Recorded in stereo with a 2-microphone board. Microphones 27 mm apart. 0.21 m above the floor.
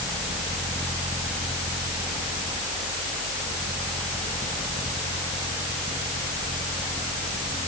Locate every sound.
Only background noise.